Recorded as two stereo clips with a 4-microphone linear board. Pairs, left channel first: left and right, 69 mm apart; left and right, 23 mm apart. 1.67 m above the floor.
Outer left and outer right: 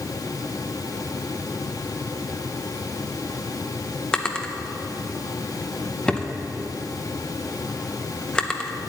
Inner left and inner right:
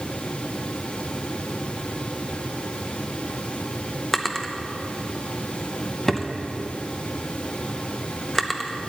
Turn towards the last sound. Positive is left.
turn(degrees=15)  # may be behind; listen again after turning